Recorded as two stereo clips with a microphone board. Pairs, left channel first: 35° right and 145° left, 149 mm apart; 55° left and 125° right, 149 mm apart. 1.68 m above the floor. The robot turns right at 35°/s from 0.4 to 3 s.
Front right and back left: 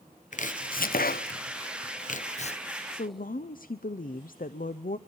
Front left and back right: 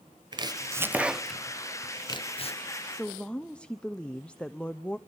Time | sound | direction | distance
0.3 | chopping | 65° right | 0.5 m
2.9 | a woman speaking | 30° right | 0.6 m